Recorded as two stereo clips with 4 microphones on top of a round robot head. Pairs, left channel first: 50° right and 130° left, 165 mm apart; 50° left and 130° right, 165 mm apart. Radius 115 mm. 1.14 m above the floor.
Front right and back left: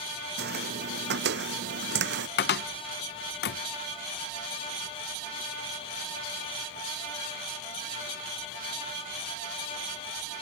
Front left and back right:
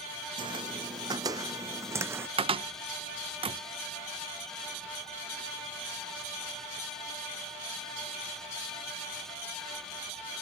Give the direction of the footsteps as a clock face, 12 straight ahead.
7 o'clock.